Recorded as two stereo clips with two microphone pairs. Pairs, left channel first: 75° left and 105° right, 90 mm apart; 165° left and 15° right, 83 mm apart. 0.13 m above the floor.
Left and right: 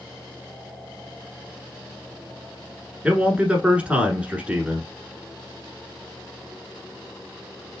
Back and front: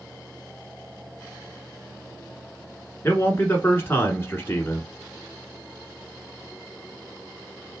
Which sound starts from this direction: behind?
A man speaking, at 3.0 s.